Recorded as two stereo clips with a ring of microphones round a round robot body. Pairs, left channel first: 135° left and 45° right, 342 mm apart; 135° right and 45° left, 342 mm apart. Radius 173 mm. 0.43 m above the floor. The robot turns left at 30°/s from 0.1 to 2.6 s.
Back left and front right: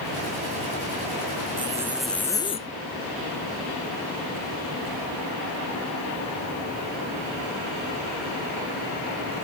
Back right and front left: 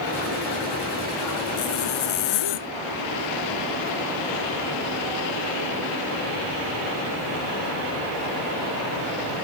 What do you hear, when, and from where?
1.6 s a zipper: 120° right; by 2.7 s 150° right